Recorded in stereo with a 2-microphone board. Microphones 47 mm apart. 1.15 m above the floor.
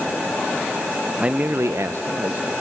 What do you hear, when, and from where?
1.2 s a man speaking: 25° right (ahead or behind), 0.6 m; by 2.5 s 50° right (ahead or behind), 1.1 m